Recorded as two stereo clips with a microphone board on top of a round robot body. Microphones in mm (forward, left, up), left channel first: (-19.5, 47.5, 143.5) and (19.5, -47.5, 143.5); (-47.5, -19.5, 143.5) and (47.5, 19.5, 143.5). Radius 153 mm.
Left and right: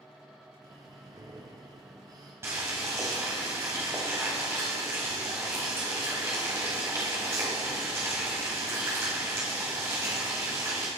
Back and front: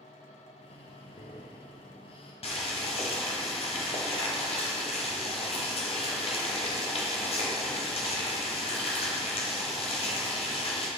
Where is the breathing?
125° right, 0.7 m.